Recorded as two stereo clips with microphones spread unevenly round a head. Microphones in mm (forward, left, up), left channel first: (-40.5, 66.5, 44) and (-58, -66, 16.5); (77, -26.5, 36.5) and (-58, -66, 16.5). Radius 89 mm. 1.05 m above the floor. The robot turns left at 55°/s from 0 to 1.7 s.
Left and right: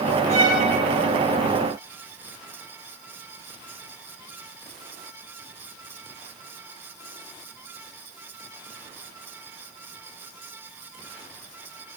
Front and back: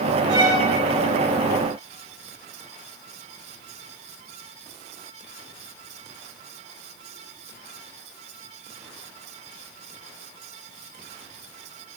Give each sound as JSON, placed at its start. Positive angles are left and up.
{"t": 0.3, "sound": "a violin", "azimuth_deg": -105, "distance_m": 2.5}